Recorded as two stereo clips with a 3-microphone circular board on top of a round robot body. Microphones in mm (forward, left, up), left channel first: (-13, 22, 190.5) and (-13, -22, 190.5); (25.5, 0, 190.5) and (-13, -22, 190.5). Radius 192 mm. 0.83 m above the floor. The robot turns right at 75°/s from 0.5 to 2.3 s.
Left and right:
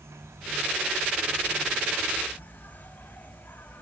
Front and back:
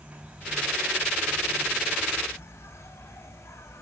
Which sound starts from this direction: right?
An insect, at 0.0 s.